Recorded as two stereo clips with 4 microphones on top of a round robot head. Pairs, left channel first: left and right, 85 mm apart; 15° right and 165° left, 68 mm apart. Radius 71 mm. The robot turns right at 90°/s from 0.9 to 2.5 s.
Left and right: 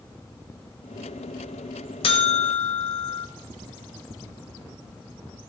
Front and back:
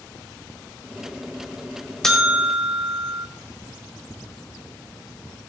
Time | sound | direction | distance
2.0 | a buzzer | 70° left | 1.6 m